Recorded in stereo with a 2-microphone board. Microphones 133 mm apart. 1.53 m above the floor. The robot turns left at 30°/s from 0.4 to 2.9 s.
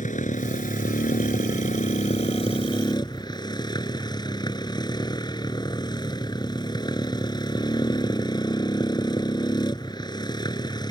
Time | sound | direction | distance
0.0 | a motorcycle | 110° left | ?